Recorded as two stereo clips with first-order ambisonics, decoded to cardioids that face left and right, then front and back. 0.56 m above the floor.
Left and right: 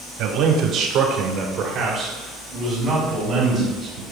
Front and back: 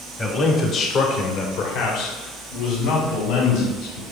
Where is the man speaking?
75° right, 1.1 m; by 4.0 s 10° right, 3 m.